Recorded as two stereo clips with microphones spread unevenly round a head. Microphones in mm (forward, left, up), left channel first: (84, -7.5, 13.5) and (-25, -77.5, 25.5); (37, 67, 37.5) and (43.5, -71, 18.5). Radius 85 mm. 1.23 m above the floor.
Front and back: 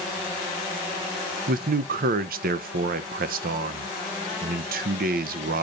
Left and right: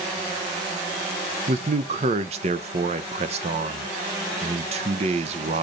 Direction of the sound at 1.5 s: 140° right.